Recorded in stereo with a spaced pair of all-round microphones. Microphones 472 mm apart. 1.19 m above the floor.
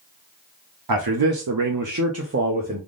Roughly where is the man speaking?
Right.